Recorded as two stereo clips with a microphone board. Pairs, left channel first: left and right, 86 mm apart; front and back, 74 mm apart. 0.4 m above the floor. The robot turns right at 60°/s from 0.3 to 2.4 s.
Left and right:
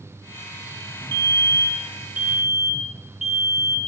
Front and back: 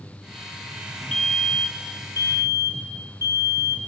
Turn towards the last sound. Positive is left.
turn(degrees=-5)